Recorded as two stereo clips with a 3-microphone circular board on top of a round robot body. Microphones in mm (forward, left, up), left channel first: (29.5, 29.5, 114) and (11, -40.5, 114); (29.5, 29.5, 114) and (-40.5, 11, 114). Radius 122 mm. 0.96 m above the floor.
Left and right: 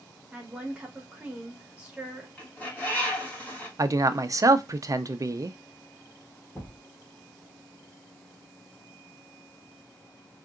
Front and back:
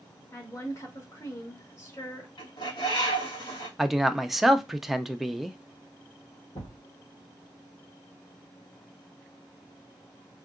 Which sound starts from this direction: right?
A man speaking, at 3.8 s.